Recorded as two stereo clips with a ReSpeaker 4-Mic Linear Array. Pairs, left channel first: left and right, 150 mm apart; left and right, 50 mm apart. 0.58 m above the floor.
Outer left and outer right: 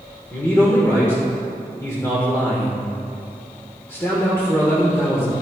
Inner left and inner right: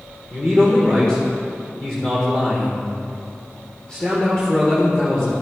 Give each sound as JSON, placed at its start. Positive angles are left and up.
{"t": 0.3, "sound": "a man speaking", "side_deg": 15, "distance_m": 1.8}